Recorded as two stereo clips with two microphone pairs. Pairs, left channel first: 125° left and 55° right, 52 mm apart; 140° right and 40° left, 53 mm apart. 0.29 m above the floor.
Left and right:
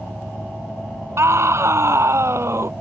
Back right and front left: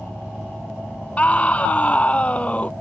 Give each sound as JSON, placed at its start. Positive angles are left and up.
{"t": 1.2, "sound": "a scream", "azimuth_deg": -80}